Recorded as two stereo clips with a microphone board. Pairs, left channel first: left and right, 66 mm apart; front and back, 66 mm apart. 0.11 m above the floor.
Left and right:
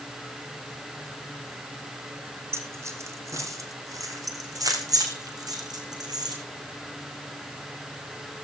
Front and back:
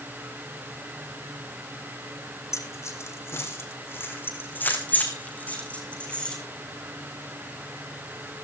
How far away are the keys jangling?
About 3.5 m.